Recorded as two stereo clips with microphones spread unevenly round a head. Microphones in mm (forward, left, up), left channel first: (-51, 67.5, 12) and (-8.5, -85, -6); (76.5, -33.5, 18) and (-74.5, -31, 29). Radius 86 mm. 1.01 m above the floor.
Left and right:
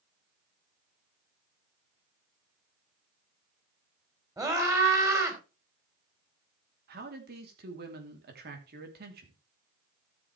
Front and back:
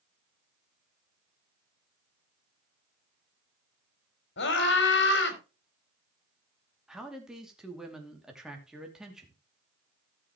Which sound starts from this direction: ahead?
A scream, at 4.4 s.